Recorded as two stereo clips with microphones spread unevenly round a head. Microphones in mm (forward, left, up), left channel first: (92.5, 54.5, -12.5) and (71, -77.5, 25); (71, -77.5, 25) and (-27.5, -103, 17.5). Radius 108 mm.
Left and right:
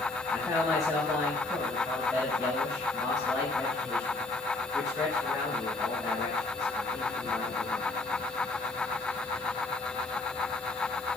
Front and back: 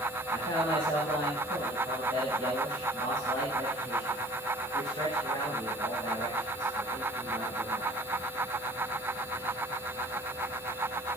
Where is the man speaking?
160° left, 5 m.